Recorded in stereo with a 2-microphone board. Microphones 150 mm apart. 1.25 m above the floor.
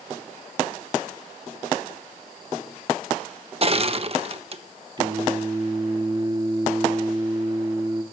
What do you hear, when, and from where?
3.6 s crushing: 40° right (ahead or behind), 1.2 m
5.0 s singing: 30° right (ahead or behind), 1.6 m